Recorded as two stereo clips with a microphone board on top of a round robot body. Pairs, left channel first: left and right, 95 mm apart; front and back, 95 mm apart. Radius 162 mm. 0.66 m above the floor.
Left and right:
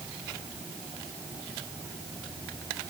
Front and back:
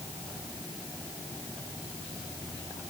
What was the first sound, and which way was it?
Only background noise.